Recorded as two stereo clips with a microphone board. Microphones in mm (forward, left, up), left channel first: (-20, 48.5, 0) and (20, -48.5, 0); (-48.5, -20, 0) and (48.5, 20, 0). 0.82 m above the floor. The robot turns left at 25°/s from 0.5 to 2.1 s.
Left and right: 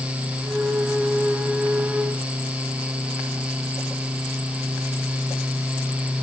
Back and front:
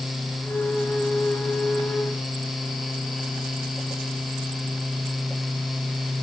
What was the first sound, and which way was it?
Only background noise.